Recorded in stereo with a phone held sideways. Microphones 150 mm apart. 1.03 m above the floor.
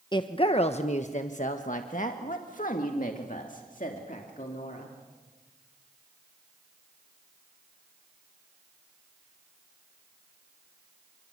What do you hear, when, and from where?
0.1 s a woman speaking: 30° left (ahead or behind), 0.9 m; by 5.0 s 60° left (ahead or behind), 3 m